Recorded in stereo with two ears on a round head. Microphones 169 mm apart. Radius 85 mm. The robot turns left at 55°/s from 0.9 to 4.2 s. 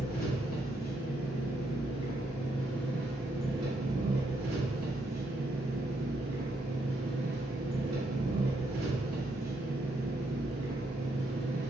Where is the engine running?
120° left, 0.8 m; by 11.7 s 60° right, 0.8 m.